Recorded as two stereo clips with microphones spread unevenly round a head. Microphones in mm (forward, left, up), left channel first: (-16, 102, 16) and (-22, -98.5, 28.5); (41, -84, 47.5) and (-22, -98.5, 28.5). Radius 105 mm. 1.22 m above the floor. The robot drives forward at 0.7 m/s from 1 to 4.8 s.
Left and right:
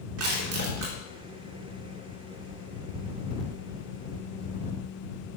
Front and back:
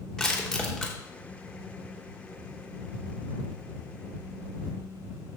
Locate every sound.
0.2 s crushing: 70° right, 3.5 m